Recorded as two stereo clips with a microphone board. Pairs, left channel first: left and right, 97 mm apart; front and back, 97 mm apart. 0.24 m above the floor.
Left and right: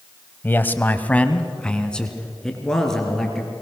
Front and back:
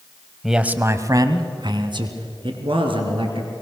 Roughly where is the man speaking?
Left.